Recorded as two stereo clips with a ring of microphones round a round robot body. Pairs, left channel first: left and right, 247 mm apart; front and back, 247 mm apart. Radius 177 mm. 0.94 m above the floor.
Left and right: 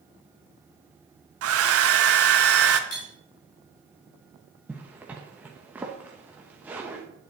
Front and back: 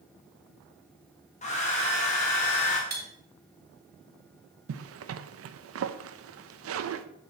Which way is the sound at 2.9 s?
130° left.